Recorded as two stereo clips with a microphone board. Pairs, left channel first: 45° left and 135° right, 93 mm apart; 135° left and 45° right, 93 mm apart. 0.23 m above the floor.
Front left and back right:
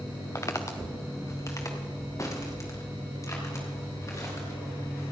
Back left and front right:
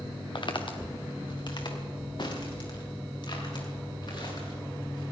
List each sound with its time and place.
0.3 s footsteps: 100° left, 1.4 m